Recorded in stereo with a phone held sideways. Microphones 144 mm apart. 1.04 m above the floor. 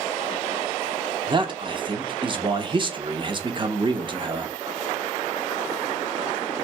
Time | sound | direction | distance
1.3 | a man speaking | 35° right (ahead or behind) | 0.7 m